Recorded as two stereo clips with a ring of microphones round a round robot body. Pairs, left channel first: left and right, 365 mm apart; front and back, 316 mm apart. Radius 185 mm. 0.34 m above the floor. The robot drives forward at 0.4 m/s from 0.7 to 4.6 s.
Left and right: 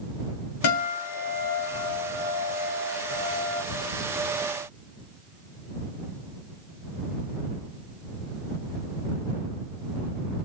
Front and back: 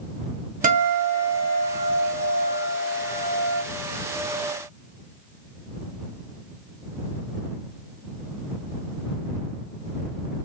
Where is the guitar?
120° left, 2.0 m; by 3.6 s 140° left, 2.5 m.